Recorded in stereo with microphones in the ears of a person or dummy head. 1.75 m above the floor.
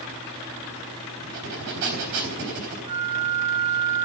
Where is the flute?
65° right (ahead or behind), 4 m.